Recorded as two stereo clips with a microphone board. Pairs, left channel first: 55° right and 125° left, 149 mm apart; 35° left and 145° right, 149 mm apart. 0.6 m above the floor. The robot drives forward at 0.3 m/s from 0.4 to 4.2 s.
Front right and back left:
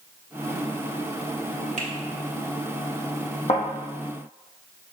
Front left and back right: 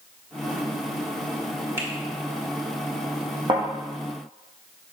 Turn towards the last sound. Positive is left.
turn(degrees=-100)